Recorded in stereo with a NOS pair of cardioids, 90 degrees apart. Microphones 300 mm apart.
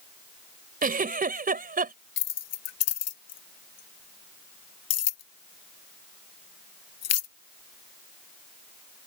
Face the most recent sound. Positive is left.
turn(degrees=55)